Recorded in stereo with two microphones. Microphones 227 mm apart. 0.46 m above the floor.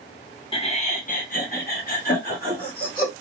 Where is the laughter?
25° left (ahead or behind), 0.8 m; by 3.1 s 35° left (ahead or behind), 1.8 m.